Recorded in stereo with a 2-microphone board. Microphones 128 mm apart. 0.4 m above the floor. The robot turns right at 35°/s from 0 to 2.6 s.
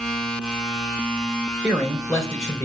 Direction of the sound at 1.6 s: 5° left.